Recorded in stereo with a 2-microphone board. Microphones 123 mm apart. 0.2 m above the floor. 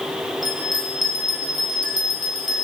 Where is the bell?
35° left (ahead or behind), 3 m.